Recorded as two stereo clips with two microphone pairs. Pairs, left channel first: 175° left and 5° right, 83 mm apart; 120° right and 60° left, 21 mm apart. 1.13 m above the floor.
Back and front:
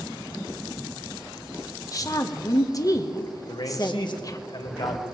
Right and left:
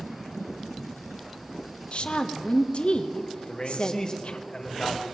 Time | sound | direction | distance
1.9 | a woman speaking | 140° right | 1.0 m
3.5 | a man speaking | 165° right | 1.5 m